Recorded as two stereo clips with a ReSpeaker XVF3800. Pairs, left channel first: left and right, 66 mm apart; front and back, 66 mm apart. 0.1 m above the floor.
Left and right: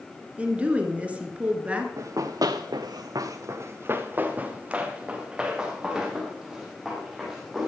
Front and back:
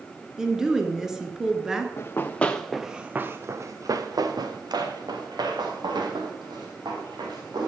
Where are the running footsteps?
55° right, 1.2 m; by 7.7 s 175° right, 4.5 m.